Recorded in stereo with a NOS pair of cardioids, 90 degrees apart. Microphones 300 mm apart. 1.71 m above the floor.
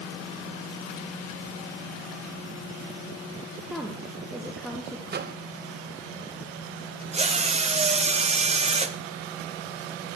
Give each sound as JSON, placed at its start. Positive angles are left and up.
{"t": 3.6, "sound": "a woman speaking", "azimuth_deg": 0, "distance_m": 1.6}
{"t": 5.1, "sound": "a microwave", "azimuth_deg": -35, "distance_m": 0.9}
{"t": 7.1, "sound": "a drill", "azimuth_deg": -20, "distance_m": 0.9}